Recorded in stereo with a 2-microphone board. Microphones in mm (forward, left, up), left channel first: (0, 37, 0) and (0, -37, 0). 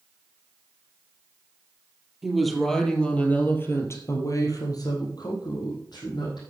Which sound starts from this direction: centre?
A woman speaking, at 2.2 s.